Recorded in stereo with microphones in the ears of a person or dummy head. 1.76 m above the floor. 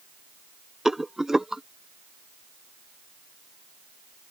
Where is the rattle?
5° right (ahead or behind).